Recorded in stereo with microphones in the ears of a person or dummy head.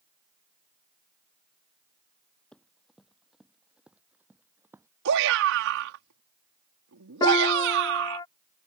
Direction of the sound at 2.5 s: 10° left (ahead or behind).